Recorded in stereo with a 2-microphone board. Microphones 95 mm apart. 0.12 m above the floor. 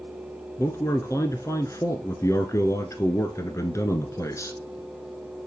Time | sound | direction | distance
0.6 | a man speaking | 30° left (ahead or behind) | 1.2 m